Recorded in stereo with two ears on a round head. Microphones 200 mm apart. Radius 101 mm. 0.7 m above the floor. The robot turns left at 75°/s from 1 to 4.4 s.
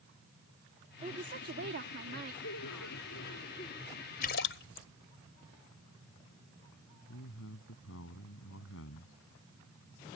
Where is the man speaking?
65° left (ahead or behind).